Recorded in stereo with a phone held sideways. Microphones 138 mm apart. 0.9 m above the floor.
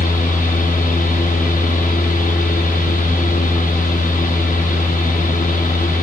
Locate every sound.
0.0 s a fan: 70° left (ahead or behind), 0.8 m